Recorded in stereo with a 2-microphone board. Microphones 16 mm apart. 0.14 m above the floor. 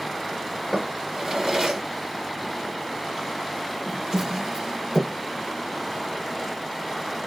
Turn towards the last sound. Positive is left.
turn(degrees=-40)  # may be behind; listen again after turning